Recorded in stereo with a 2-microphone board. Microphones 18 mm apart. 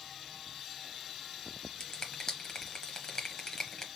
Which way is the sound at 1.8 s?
35° left (ahead or behind).